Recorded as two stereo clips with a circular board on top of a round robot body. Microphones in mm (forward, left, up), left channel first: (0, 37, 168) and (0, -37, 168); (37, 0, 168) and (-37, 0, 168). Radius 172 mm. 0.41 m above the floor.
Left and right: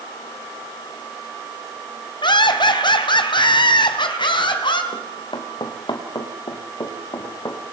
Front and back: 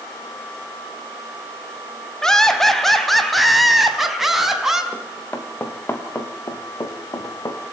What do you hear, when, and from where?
2.2 s laughter: 85° left, 3.5 m; by 4.8 s 95° left, 4.5 m
4.9 s running footsteps: 70° left, 3.5 m; by 7.6 s 45° left, 4 m